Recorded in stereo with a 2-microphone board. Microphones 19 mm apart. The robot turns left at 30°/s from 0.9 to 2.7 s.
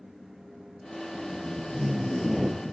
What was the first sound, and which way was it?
Tape being pulled, 35° left.